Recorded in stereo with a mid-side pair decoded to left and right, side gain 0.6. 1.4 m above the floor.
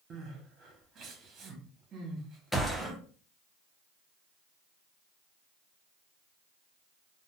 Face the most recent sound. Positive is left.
turn(degrees=5)